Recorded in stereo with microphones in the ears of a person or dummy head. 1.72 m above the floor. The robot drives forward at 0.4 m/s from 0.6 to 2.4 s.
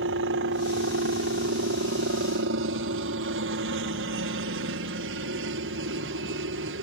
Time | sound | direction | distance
0.0 | a helicopter | 60° right (ahead or behind) | ?